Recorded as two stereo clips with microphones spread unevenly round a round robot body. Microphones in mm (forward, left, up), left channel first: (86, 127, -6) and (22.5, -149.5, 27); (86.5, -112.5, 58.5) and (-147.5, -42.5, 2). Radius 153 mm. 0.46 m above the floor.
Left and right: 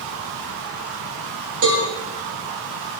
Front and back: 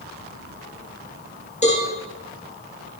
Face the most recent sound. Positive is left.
turn(degrees=-80)